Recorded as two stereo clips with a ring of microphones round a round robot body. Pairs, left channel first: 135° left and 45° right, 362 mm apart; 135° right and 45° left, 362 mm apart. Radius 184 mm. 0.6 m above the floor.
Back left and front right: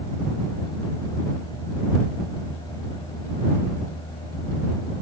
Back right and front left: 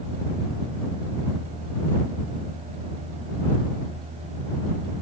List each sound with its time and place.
Only background noise.